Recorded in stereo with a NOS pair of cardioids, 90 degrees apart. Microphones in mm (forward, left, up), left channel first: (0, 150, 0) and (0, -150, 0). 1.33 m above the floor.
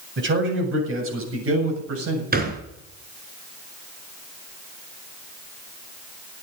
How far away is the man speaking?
About 7.5 m.